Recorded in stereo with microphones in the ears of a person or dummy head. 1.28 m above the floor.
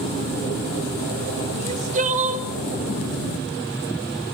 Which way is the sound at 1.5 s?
35° right (ahead or behind).